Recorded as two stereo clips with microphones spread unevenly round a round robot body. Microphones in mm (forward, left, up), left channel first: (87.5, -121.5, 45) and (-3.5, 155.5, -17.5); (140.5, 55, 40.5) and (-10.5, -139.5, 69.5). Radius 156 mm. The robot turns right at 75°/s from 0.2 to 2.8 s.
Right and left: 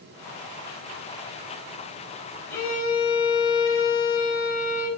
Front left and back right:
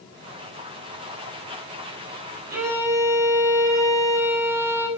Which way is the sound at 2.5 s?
160° right.